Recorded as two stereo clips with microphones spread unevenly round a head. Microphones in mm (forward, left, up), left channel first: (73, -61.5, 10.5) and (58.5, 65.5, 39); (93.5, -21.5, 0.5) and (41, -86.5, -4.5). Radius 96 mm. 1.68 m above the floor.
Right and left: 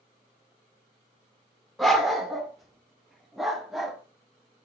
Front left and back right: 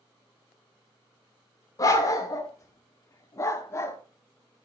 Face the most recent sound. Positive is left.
turn(degrees=30)